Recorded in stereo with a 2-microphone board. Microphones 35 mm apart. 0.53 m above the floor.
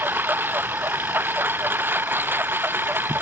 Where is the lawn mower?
75° right (ahead or behind); by 3.2 s 85° right.